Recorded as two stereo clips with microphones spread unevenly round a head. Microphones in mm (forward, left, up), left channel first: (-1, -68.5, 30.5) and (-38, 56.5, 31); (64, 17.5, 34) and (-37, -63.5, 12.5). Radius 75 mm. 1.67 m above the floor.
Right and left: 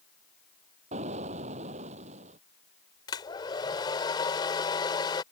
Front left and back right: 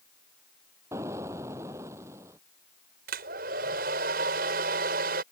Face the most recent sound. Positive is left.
turn(degrees=-130)